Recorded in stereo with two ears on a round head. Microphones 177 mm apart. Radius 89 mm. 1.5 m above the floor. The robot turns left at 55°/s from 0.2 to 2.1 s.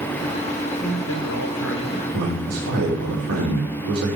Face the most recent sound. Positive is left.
turn(degrees=-85)